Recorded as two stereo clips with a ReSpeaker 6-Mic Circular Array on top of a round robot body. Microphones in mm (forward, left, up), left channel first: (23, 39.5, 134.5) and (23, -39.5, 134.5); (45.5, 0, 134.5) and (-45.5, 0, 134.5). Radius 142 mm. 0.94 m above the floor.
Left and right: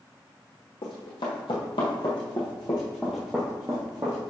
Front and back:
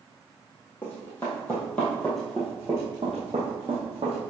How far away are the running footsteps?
About 1.8 m.